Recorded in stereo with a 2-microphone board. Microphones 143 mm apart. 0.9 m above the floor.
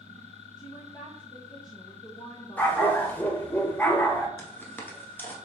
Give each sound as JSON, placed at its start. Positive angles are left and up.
{"t": 0.6, "sound": "a woman speaking", "side_deg": 30, "distance_m": 0.7}
{"t": 2.6, "sound": "a dog barking", "side_deg": 10, "distance_m": 0.6}
{"t": 4.4, "sound": "footsteps", "side_deg": 15, "distance_m": 0.9}